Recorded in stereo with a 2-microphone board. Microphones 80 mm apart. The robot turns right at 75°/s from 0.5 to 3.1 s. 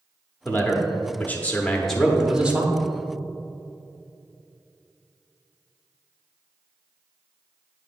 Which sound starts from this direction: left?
A man speaking, at 0.5 s.